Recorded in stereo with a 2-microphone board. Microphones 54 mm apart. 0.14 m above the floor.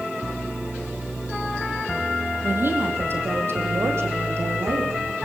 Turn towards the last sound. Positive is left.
turn(degrees=-60)  # may be behind; listen again after turning